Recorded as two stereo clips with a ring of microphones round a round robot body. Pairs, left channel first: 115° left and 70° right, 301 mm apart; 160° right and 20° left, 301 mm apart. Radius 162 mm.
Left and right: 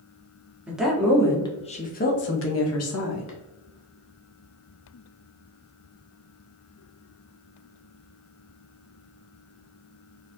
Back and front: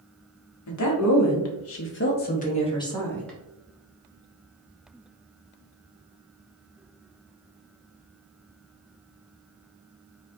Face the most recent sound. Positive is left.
turn(degrees=115)